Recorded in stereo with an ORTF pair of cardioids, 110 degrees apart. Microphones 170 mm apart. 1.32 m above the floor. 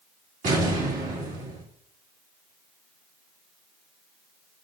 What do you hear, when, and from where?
0.4 s an explosion: 50° right, 2.5 m